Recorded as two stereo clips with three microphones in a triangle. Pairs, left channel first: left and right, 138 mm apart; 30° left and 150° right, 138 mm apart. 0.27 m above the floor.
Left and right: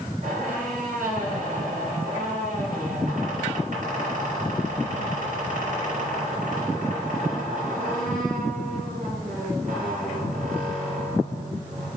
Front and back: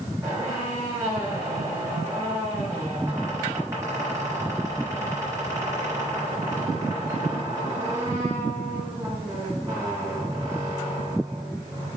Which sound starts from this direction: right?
A squeak, at 0.2 s.